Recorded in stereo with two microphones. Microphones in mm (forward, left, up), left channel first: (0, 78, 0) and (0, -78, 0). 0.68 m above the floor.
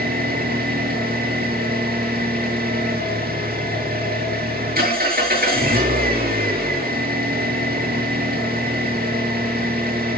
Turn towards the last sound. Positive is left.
turn(degrees=-85)